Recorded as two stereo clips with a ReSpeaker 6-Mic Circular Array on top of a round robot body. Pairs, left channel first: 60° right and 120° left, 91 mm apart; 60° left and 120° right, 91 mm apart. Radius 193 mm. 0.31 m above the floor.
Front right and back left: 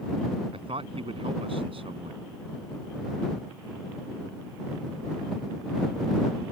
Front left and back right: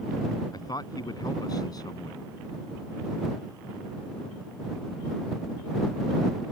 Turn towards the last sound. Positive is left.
turn(degrees=105)